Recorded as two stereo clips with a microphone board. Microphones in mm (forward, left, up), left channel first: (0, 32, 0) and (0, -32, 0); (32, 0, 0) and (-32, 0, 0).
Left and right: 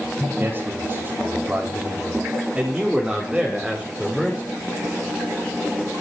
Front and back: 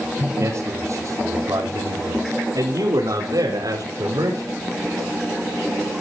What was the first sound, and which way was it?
A man speaking, 145° right.